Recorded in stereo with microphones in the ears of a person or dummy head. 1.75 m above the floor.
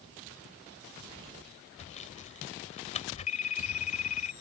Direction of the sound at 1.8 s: 35° left (ahead or behind).